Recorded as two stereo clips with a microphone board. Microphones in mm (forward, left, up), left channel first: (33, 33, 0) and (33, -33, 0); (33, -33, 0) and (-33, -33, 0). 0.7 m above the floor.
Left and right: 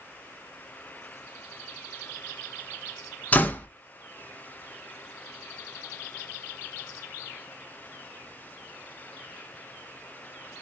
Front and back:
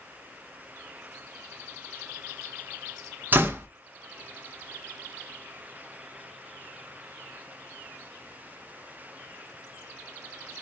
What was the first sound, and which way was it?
A door slam, 140° left.